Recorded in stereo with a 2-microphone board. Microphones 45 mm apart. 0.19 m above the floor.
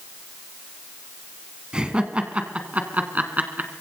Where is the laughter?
20° right (ahead or behind), 2.0 m; by 3.7 s 45° right (ahead or behind), 2.5 m.